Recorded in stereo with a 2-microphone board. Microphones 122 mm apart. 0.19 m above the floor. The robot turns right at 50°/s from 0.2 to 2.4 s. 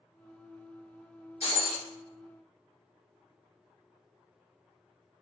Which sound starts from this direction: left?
Breaking glass, at 1.4 s.